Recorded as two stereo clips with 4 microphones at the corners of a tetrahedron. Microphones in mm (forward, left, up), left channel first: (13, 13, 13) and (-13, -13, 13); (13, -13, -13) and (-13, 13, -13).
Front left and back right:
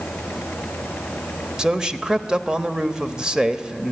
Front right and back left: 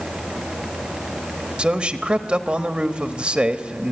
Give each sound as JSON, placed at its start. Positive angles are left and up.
{"t": 1.6, "sound": "a man speaking", "azimuth_deg": 165, "distance_m": 1.1}